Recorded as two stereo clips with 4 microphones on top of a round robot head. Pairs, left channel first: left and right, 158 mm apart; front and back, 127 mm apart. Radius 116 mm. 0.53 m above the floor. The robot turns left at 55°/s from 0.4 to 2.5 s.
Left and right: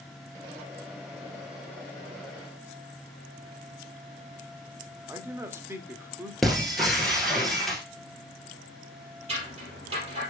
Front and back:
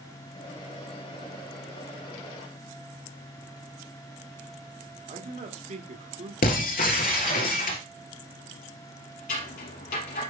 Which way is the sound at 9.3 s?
25° right.